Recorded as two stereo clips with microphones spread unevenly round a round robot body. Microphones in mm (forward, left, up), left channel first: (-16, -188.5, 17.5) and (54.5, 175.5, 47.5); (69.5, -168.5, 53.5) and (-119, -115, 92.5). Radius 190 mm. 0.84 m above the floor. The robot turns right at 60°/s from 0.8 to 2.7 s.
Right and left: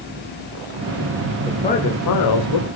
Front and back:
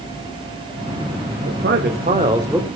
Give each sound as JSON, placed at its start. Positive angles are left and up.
{"t": 1.5, "sound": "a man speaking", "azimuth_deg": 175, "distance_m": 2.5}